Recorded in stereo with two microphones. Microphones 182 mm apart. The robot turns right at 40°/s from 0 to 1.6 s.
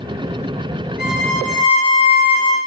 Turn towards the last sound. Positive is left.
turn(degrees=15)  # may be behind; listen again after turning